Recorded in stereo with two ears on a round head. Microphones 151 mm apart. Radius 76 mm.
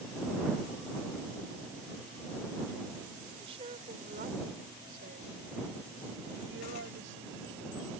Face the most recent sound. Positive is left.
turn(degrees=-80)